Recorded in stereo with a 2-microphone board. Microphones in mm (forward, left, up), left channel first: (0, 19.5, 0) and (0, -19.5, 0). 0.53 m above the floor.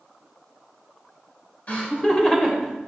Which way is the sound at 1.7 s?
35° left (ahead or behind).